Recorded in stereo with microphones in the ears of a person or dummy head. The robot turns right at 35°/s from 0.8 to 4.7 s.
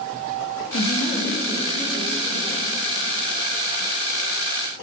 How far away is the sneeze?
No sneeze in this recording.